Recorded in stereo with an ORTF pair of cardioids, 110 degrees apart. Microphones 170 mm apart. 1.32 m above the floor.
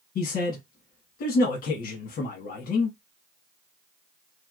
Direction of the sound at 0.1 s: 60° left.